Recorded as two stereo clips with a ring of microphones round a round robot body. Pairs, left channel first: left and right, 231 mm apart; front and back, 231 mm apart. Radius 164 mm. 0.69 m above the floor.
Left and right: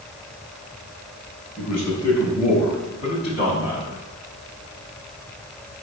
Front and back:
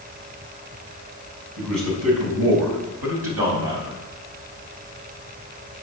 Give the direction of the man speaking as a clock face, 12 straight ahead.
6 o'clock.